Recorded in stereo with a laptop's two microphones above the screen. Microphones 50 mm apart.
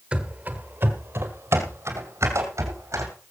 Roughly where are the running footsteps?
Right.